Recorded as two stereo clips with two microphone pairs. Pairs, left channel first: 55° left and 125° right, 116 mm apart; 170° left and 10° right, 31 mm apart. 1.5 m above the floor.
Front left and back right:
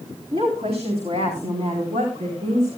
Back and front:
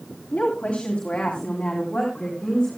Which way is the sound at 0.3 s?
155° right.